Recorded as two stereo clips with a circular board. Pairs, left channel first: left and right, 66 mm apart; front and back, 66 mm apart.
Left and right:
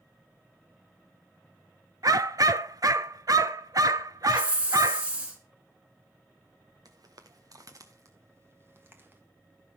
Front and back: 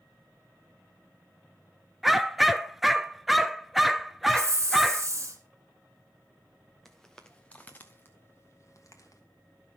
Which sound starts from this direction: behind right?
A hiss, at 4.3 s.